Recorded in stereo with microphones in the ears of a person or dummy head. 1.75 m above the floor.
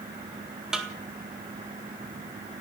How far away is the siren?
I don't hear a siren.